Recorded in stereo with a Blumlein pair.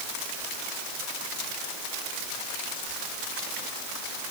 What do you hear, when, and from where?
Only background noise.